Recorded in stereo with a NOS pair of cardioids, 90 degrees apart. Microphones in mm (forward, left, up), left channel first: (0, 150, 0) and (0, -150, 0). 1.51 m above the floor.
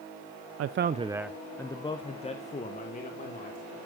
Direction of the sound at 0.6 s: 55° right.